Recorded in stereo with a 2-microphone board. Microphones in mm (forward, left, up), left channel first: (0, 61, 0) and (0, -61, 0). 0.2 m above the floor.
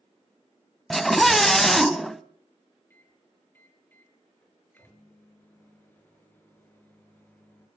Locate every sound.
0.9 s a scream: centre (ahead or behind), 1.0 m
2.9 s a microwave: 15° left (ahead or behind), 3.5 m